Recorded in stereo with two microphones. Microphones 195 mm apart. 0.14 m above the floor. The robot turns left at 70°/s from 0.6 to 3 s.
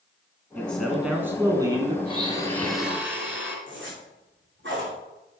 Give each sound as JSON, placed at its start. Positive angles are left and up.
{"t": 0.6, "sound": "a man speaking", "side_deg": 5, "distance_m": 1.3}
{"t": 2.0, "sound": "a blender", "azimuth_deg": 50, "distance_m": 2.0}
{"t": 3.7, "sound": "a zipper", "side_deg": -75, "distance_m": 4.5}